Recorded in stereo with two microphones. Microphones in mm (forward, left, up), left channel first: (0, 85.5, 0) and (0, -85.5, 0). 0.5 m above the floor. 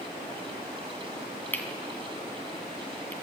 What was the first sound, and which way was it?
Cutlery clinking, 10° left (ahead or behind).